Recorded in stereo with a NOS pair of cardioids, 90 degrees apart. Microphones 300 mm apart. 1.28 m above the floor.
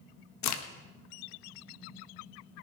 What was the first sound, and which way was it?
A crack, 65° left.